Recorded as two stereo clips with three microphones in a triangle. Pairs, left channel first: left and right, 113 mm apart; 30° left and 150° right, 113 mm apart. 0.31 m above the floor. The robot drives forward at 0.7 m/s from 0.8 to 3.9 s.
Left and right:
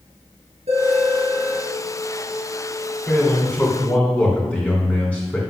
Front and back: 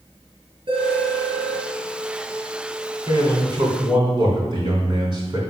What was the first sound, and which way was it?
A phone ringing, 105° right.